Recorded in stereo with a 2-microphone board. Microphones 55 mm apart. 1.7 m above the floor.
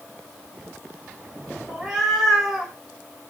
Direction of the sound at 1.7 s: 5° right (ahead or behind).